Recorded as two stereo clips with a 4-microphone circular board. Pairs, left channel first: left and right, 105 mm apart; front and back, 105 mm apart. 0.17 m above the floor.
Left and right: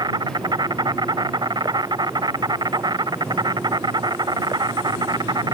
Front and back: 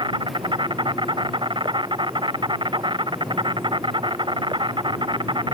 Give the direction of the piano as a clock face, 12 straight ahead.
No piano in this recording.